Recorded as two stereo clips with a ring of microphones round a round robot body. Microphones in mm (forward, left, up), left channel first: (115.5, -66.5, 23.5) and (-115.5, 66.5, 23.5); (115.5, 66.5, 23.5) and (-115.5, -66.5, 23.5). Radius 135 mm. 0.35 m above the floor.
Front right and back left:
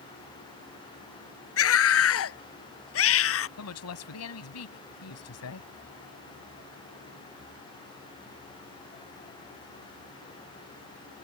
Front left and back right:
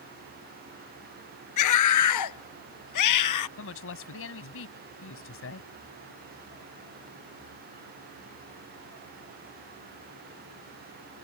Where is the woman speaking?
5° right.